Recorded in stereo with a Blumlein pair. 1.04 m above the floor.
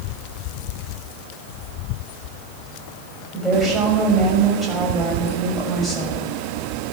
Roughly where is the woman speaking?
Ahead.